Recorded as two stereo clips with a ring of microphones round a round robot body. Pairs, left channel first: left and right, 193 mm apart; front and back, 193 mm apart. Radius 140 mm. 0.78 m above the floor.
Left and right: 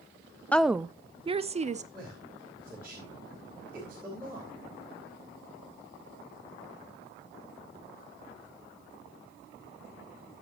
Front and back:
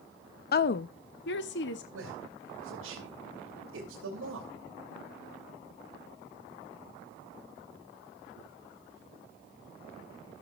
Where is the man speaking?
175° right, 3.5 m.